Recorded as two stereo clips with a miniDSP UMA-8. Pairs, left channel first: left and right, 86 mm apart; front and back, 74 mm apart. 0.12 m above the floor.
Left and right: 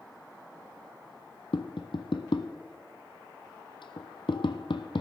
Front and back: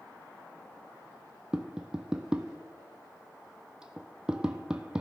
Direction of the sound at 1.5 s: 100° left.